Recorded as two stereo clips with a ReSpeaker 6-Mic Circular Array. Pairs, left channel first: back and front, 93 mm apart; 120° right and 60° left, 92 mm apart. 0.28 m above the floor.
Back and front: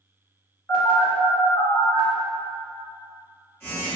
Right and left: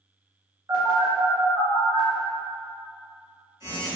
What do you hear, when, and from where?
0.7 s a phone buzzing: 115° left, 1.5 m